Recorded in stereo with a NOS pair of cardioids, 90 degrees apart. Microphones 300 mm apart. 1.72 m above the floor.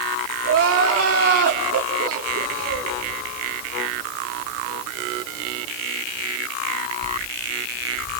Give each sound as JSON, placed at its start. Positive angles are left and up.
{"t": 0.4, "sound": "crying", "azimuth_deg": -50, "distance_m": 4.0}